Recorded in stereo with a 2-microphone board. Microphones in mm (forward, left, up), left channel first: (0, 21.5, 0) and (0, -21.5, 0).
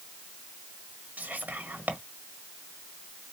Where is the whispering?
45° right (ahead or behind), 1.4 m.